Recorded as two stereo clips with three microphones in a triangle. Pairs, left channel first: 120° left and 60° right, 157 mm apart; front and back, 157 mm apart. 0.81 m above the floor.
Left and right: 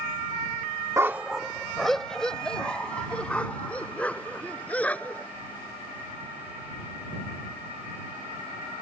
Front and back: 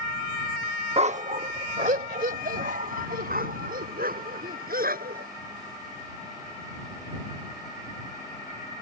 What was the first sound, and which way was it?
A dog barking, 130° right.